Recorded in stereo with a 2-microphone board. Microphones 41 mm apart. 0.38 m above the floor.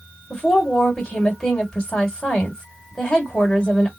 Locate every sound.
0.3 s a woman speaking: 15° left (ahead or behind), 1.9 m